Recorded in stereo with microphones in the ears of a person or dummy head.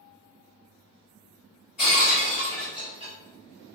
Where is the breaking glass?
40° left (ahead or behind), 1.6 m.